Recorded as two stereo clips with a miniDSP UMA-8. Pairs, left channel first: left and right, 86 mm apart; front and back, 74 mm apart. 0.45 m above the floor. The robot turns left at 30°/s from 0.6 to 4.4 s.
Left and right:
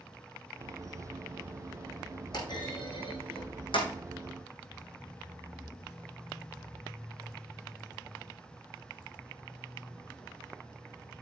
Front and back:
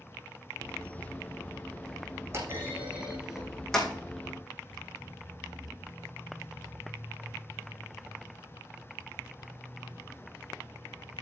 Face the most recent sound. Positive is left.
turn(degrees=65)